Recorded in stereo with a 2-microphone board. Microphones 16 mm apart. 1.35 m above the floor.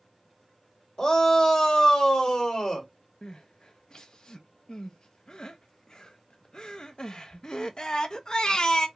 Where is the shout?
45° left (ahead or behind), 1.8 m.